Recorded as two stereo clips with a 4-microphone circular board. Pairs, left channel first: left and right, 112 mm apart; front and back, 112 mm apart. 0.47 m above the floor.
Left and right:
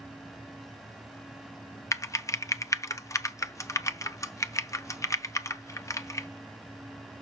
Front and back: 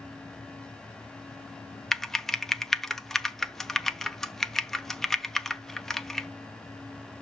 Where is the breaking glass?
No breaking glass in this recording.